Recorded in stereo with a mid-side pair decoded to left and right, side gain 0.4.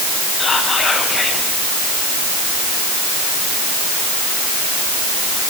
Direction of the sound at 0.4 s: 50° left.